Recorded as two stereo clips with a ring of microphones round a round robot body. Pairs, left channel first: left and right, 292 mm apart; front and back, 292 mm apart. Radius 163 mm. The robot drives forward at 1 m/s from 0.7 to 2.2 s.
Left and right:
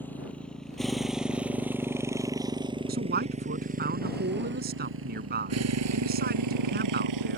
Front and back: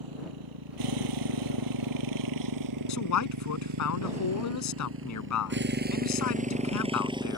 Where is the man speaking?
25° right.